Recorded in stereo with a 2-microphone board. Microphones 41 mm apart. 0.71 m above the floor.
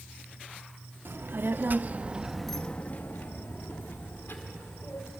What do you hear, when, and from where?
1.1 s a child speaking: 65° right (ahead or behind), 1.1 m; by 5.1 s 75° left (ahead or behind), 2 m